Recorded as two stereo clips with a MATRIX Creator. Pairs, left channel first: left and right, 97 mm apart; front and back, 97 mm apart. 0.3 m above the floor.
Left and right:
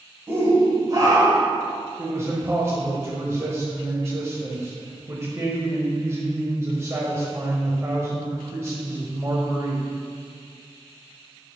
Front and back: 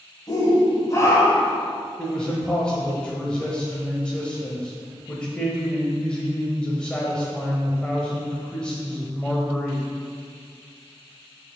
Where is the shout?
30° right, 1.8 m; by 1.6 s 60° right, 2.0 m.